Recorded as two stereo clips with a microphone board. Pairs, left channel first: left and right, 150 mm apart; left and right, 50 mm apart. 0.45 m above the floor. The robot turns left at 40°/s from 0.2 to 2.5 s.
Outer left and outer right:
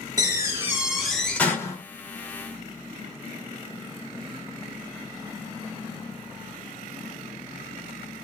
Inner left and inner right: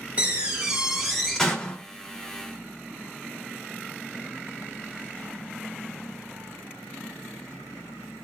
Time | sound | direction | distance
0.2 | a door slam | 145° right | 1.1 m